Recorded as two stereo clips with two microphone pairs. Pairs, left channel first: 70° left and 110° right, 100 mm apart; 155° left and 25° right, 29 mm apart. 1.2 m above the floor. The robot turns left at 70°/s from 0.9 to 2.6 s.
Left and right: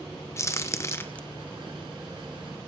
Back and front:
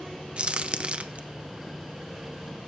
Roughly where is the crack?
Ahead.